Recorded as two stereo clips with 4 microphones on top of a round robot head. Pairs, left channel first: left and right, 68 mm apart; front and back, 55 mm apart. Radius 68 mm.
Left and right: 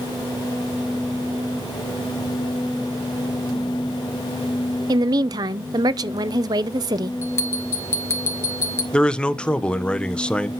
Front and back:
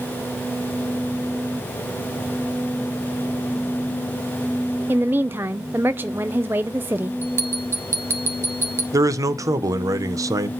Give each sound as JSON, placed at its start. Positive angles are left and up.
{"t": 4.9, "sound": "a woman speaking", "azimuth_deg": -115, "distance_m": 0.6}
{"t": 7.2, "sound": "a bell", "azimuth_deg": 140, "distance_m": 3.5}
{"t": 8.9, "sound": "a man speaking", "azimuth_deg": 165, "distance_m": 1.3}